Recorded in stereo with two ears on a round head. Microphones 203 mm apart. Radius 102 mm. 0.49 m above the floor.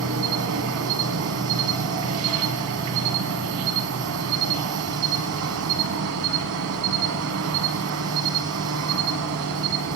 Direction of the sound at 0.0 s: 65° right (ahead or behind).